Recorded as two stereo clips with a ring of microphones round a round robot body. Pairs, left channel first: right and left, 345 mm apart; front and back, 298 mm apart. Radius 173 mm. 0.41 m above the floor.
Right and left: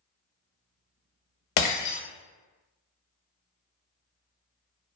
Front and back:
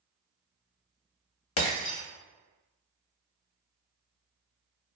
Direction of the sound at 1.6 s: 50° right.